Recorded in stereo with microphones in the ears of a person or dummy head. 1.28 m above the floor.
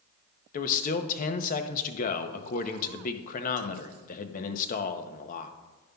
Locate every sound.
0.5 s a man speaking: 40° left (ahead or behind), 0.6 m